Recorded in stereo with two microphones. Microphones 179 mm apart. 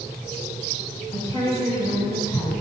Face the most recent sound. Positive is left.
turn(degrees=20)  # may be behind; listen again after turning